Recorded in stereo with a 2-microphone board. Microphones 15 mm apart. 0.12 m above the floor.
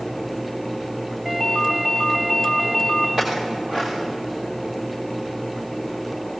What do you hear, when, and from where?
1.2 s a ringtone: 15° right (ahead or behind), 4.5 m
3.2 s a clink: 40° right (ahead or behind), 7.5 m